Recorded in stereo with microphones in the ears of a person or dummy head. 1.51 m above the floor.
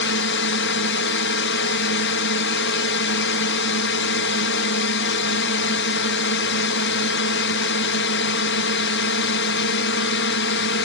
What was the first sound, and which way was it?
A drone, 60° left (ahead or behind).